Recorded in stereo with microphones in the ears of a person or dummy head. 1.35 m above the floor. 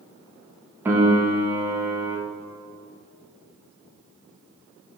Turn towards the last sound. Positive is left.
turn(degrees=-10)  # may be behind; listen again after turning